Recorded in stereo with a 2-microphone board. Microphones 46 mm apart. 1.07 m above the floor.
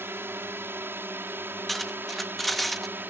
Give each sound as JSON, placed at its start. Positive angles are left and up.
{"t": 0.0, "sound": "a drone", "side_deg": -65}
{"t": 1.7, "sound": "cutlery clinking", "side_deg": 5}